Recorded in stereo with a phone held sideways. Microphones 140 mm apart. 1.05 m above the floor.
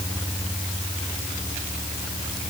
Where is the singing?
I don't hear singing.